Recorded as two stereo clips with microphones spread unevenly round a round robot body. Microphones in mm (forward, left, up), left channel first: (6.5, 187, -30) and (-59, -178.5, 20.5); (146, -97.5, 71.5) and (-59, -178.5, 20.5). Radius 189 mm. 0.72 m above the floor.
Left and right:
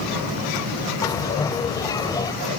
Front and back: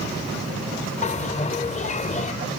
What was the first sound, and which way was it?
A bell, 5° right.